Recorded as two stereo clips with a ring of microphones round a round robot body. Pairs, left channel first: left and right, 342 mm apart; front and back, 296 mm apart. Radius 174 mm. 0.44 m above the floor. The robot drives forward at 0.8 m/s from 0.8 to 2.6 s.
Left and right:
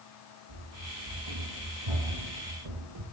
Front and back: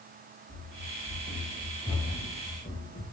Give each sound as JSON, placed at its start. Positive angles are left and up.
{"t": 0.5, "sound": "running footsteps", "azimuth_deg": -70, "distance_m": 1.8}